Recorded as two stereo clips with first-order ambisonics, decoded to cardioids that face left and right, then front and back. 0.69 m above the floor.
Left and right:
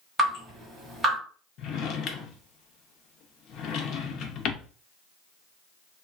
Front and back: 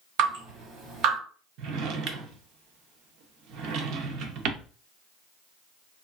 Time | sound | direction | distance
0.2 | dripping | straight behind | 1.7 m
1.6 | a drawer | 140° left | 0.5 m